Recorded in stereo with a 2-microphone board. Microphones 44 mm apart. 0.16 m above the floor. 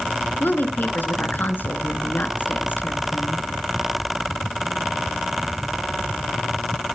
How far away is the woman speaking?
About 2.5 m.